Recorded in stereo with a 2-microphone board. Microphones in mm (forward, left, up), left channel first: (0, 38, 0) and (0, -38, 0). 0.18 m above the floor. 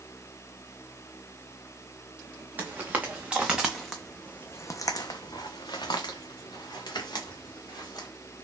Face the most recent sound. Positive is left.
turn(degrees=65)  # may be behind; listen again after turning